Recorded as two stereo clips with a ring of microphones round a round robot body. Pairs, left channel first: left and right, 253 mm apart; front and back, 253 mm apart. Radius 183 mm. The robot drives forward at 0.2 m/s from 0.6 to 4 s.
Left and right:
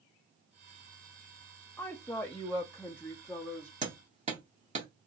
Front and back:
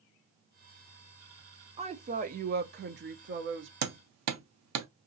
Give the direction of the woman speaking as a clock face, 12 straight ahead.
7 o'clock.